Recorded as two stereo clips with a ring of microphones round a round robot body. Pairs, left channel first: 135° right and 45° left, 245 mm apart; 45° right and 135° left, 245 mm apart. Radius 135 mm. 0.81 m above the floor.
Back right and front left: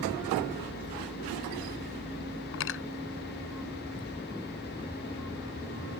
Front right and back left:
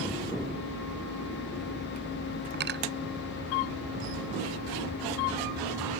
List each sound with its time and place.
2.5 s cutlery clinking: 175° right